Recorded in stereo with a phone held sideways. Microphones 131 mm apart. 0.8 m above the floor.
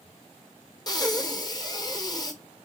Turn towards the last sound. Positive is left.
turn(degrees=30)  # may be behind; listen again after turning